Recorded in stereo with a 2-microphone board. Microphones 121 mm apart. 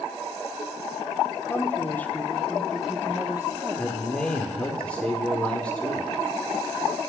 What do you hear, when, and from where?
1.5 s a woman speaking: 20° left (ahead or behind), 1.2 m; by 4.8 s 25° right (ahead or behind), 1.4 m
3.8 s a man speaking: 10° left (ahead or behind), 1.0 m